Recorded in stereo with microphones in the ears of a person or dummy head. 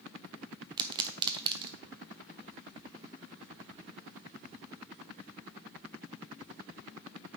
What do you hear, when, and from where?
0.8 s a pop: 20° right (ahead or behind), 0.7 m